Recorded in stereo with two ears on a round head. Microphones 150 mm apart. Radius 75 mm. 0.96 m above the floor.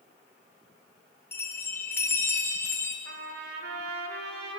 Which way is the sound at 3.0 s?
65° right (ahead or behind).